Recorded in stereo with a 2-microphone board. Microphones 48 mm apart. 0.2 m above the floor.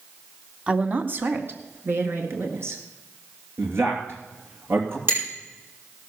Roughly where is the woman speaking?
Right.